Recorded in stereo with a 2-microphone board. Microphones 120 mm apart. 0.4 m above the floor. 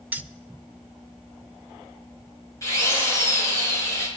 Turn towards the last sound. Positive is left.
turn(degrees=25)  # may be behind; listen again after turning